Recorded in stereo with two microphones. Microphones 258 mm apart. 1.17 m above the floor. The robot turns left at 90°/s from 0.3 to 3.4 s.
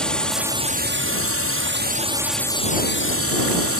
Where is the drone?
5° left; by 3.8 s 85° left.